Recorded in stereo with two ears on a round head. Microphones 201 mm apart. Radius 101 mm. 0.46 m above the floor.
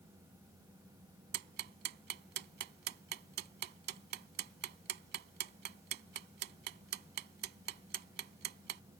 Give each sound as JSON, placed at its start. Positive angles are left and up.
{"t": 1.3, "sound": "ticking", "side_deg": -50}